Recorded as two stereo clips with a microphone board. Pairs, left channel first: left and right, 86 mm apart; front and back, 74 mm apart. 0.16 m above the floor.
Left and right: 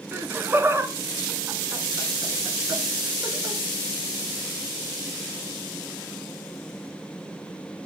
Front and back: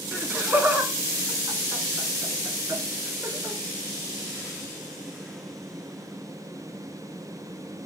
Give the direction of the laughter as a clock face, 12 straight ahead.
4 o'clock.